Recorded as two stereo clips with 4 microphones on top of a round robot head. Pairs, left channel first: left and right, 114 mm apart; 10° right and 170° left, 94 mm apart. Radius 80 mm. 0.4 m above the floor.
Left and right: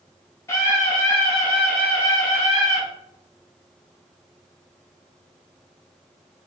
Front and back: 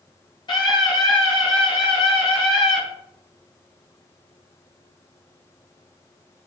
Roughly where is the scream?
Ahead.